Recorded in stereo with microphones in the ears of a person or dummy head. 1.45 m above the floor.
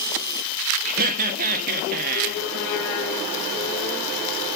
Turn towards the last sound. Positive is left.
turn(degrees=-45)  # may be behind; listen again after turning